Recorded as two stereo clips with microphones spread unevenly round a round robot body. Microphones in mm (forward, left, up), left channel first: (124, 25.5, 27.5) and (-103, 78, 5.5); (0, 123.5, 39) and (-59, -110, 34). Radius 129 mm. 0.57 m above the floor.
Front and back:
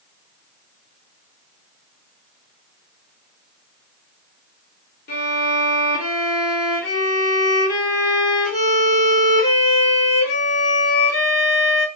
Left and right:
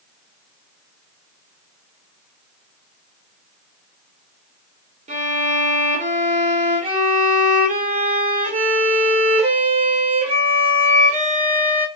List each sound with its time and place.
5.1 s a violin: 55° right, 1.0 m